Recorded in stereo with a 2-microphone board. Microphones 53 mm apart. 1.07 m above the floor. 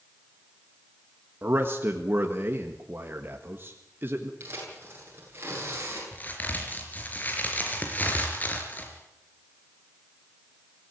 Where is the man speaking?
40° right (ahead or behind), 1.7 m.